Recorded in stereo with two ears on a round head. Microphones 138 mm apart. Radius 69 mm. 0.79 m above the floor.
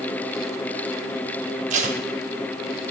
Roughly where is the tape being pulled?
Right.